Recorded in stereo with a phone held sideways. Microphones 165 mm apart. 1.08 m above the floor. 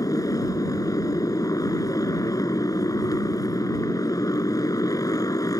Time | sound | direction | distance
0.0 | a motorcycle | 25° left (ahead or behind) | ?